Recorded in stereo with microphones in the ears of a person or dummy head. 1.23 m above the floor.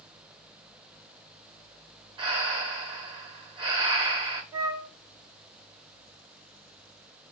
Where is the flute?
20° right (ahead or behind), 0.6 m.